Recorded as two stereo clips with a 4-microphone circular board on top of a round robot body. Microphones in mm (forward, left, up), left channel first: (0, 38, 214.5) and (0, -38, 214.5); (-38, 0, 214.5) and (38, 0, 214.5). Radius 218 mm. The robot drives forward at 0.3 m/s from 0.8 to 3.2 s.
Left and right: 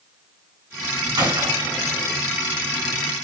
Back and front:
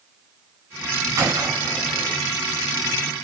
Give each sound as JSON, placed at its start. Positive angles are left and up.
{"t": 1.2, "sound": "a gunshot", "azimuth_deg": -50, "distance_m": 2.5}